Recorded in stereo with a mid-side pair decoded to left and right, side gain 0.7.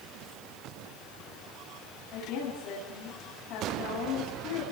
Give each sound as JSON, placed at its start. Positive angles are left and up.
{"t": 2.1, "sound": "a woman speaking", "azimuth_deg": 65, "distance_m": 10.0}